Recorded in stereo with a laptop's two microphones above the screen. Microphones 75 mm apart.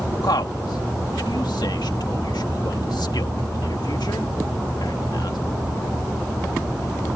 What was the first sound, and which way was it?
A man speaking, 75° left (ahead or behind).